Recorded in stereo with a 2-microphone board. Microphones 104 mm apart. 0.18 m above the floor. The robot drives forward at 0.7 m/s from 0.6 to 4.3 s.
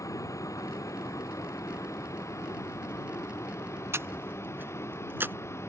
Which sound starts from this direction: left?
A vehicle, at 0.0 s.